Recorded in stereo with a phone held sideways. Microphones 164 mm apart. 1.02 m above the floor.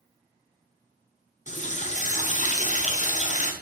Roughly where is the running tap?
Left.